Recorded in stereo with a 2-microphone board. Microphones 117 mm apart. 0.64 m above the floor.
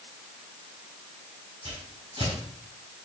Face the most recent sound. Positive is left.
turn(degrees=-60)  # may be behind; listen again after turning